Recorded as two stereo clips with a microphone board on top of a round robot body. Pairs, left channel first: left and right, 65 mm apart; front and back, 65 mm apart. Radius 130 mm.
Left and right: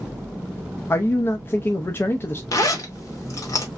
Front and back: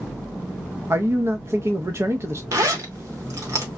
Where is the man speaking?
140° left, 0.7 m.